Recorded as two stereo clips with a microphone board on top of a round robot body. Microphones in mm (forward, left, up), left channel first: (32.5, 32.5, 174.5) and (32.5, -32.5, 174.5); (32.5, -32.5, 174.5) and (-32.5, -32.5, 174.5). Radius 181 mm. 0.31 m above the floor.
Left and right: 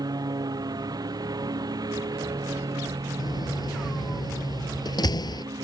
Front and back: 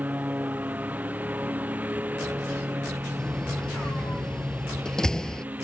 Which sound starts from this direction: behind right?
A lawn mower, at 0.0 s.